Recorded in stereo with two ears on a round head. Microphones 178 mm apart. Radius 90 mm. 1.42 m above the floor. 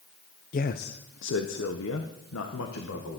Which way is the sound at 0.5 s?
40° left (ahead or behind).